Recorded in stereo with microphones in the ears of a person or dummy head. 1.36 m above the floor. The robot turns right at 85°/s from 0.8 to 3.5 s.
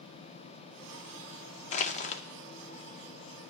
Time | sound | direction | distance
1.7 | crushing | 75° left | 0.5 m